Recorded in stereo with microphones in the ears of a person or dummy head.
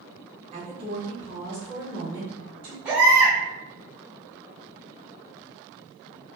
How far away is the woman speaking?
About 1.2 m.